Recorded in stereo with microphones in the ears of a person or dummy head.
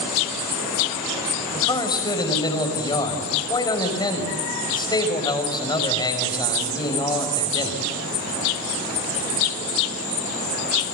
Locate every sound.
1.5 s a man speaking: 20° left (ahead or behind), 5.5 m